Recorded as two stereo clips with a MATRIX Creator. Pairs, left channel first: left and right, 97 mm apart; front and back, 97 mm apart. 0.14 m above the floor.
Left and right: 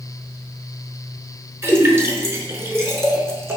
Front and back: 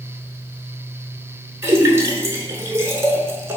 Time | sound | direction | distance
1.6 | a splash | 135° right | 0.6 m